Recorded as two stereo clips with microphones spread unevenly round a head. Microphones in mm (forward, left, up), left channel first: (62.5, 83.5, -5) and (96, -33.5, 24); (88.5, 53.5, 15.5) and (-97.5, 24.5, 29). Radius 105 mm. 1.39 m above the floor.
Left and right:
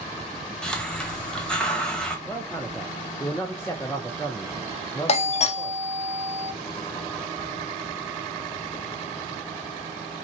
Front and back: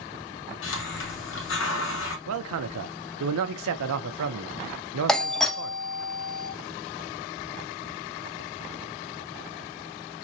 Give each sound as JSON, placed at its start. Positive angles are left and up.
{"t": 0.6, "sound": "a hiss", "azimuth_deg": 20, "distance_m": 1.5}
{"t": 2.3, "sound": "a man speaking", "azimuth_deg": -175, "distance_m": 0.6}
{"t": 5.1, "sound": "a doorbell", "azimuth_deg": 95, "distance_m": 0.8}